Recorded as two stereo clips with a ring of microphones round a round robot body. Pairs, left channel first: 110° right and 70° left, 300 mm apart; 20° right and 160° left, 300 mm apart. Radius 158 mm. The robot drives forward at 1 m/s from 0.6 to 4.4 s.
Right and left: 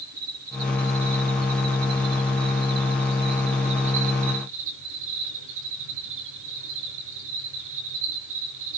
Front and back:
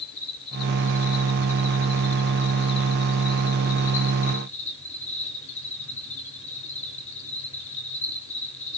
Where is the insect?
20° left, 7 m; by 8.8 s 45° left, 3.5 m.